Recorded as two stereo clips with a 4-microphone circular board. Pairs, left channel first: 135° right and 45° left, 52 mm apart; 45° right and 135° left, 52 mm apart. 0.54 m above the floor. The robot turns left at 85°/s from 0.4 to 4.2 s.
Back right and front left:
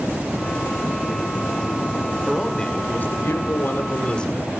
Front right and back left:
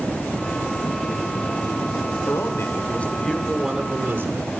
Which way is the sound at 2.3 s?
35° right.